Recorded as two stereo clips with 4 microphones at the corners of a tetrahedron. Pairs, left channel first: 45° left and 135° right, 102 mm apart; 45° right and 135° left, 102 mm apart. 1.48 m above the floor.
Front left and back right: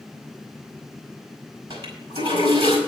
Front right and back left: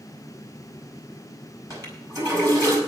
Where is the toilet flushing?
165° right, 5 m.